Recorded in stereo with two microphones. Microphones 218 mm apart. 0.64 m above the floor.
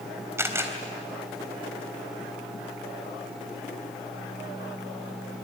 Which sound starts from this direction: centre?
A camera shutter, at 0.4 s.